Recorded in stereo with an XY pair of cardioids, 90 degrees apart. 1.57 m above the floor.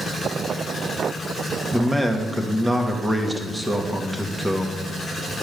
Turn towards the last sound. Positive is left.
turn(degrees=-10)